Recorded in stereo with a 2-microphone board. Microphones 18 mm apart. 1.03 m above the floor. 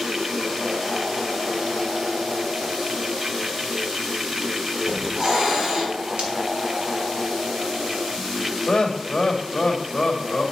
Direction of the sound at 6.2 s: 80° right.